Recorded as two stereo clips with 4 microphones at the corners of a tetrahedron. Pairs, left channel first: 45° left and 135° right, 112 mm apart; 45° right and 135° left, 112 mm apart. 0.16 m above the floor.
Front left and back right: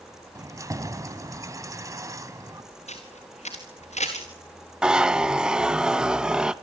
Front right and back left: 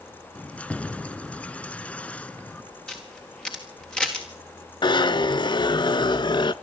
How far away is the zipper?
About 0.5 m.